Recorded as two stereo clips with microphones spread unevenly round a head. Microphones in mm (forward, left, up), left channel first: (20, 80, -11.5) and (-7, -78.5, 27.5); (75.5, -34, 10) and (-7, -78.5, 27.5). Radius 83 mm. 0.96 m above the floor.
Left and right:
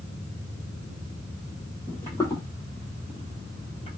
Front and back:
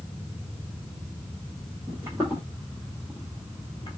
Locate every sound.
1.9 s footsteps: 170° left, 1.3 m; by 4.0 s 35° left, 1.1 m